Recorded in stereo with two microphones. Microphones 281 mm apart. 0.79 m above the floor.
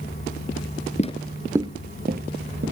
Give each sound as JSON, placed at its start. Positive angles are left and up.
{"t": 1.0, "sound": "footsteps", "side_deg": 25, "distance_m": 0.8}